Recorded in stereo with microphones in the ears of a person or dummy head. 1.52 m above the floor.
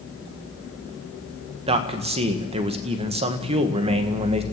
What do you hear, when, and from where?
1.7 s a man speaking: 30° right (ahead or behind), 1.8 m